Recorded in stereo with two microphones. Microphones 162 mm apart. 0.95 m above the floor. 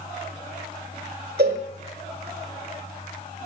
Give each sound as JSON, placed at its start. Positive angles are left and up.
{"t": 1.4, "sound": "a cowbell", "side_deg": -75, "distance_m": 1.5}